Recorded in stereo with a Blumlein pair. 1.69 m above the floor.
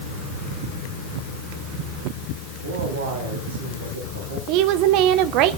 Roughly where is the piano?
I don't hear a piano.